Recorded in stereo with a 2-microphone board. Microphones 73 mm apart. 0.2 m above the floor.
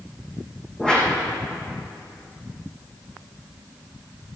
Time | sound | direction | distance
0.8 | a whoosh | 10° left (ahead or behind) | 3.5 m